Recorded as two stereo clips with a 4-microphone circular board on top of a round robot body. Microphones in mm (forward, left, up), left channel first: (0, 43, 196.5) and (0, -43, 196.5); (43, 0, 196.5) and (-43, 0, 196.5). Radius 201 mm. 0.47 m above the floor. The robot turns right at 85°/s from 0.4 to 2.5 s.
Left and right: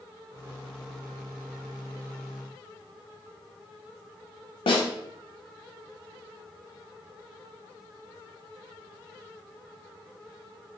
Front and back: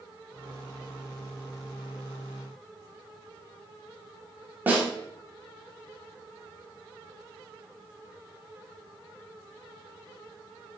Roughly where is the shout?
I don't hear a shout.